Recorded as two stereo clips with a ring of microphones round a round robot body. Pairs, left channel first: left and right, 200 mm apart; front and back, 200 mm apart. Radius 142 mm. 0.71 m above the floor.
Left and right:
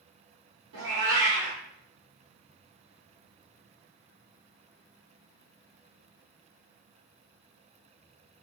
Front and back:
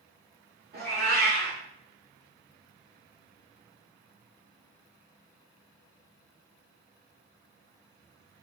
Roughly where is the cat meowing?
Behind right.